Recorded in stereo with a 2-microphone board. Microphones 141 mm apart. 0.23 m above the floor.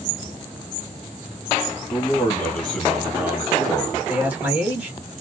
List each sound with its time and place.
1.9 s a man speaking: 25° left (ahead or behind), 1.3 m; by 4.0 s 35° right (ahead or behind), 1.3 m
4.1 s a man speaking: 10° right (ahead or behind), 1.5 m